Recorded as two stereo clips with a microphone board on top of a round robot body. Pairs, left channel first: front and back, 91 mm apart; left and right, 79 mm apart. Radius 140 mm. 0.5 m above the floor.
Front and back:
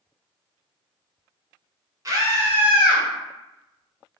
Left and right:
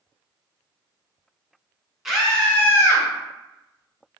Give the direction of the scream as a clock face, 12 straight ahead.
6 o'clock.